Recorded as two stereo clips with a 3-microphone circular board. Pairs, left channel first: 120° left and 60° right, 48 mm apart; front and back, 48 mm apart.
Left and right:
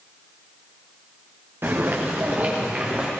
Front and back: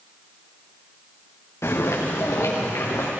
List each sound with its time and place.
1.6 s footsteps: 20° right, 3 m; by 3.1 s 5° left, 3.5 m